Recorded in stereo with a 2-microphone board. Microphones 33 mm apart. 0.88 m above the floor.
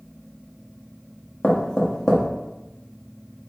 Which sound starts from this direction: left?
Knocking, at 1.4 s.